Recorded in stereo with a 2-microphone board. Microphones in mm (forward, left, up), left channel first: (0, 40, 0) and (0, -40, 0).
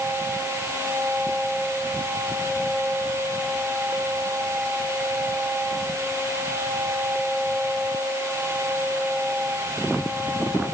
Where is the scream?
I don't hear a scream.